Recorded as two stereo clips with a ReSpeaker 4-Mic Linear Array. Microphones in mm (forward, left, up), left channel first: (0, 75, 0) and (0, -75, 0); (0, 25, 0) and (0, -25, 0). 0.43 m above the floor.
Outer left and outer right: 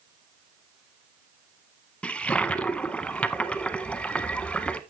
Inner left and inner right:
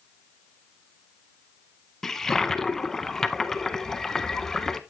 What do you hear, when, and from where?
2.0 s a toilet flushing: 10° left (ahead or behind), 0.6 m